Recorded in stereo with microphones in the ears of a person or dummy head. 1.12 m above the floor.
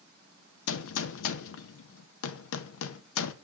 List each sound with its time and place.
0.7 s a gunshot: 75° left (ahead or behind), 0.6 m